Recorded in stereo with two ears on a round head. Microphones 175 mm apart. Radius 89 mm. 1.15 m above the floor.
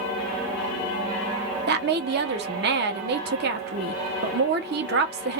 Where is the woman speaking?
55° right (ahead or behind), 0.8 m.